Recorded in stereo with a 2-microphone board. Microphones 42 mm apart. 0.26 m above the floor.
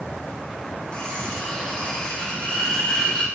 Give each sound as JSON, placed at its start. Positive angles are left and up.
{"t": 0.9, "sound": "cutlery clinking", "side_deg": 20, "distance_m": 6.5}